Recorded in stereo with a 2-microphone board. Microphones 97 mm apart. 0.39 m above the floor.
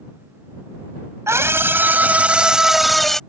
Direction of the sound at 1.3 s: 30° right (ahead or behind).